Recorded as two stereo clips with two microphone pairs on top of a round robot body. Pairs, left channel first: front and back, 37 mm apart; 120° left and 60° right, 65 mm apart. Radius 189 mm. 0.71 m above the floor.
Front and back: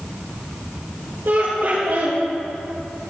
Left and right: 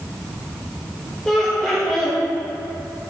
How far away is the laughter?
About 4 m.